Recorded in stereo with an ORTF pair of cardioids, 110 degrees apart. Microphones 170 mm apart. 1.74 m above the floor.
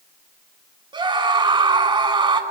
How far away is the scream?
About 8 m.